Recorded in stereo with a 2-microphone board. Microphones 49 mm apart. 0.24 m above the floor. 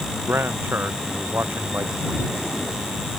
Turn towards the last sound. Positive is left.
turn(degrees=-50)  # may be behind; listen again after turning